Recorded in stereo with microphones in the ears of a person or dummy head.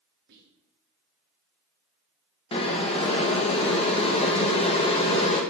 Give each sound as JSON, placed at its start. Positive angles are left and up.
{"t": 0.3, "sound": "whispering", "side_deg": -55, "distance_m": 2.0}
{"t": 2.5, "sound": "boiling", "side_deg": 30, "distance_m": 1.6}